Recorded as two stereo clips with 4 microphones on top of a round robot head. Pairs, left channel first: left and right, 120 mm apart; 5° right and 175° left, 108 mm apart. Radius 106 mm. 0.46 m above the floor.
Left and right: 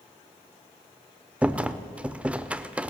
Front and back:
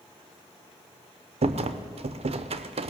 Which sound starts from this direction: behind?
A rattle, at 1.4 s.